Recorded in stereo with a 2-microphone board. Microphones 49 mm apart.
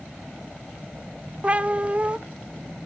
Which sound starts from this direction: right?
A cat meowing, at 1.4 s.